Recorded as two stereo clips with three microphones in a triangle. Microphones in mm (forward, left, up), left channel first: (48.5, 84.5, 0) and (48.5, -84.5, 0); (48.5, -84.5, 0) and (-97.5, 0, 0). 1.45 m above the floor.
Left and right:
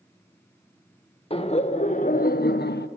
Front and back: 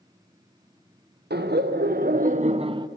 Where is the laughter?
145° left, 1.1 m; by 2.9 s 85° left, 0.6 m.